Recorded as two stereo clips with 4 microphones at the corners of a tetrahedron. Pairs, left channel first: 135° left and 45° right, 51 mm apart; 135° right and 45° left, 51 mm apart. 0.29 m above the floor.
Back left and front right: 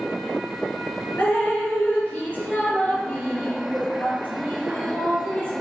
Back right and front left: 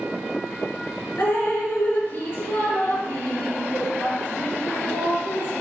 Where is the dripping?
170° right, 3.5 m.